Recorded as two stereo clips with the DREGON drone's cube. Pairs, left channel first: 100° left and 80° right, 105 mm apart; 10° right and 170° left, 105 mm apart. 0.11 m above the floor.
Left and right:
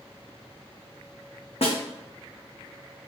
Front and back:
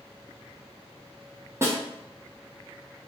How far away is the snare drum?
About 1.0 m.